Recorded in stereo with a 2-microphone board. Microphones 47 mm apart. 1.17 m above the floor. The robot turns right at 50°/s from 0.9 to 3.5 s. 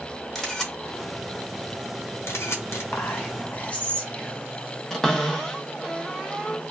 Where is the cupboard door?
10° left (ahead or behind), 0.6 m.